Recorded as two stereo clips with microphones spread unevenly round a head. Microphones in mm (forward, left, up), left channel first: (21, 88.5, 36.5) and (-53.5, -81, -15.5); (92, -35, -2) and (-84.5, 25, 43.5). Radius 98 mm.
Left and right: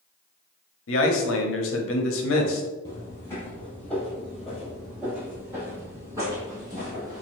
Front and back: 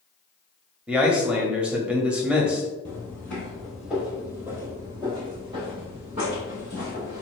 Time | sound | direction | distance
0.9 | a man speaking | 80° left | 0.8 m
2.9 | footsteps | 70° left | 1.6 m